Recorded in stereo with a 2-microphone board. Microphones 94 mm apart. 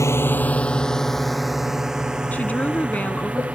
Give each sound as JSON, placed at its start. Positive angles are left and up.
{"t": 0.0, "sound": "a drone", "side_deg": 30}
{"t": 2.3, "sound": "a woman speaking", "side_deg": 15}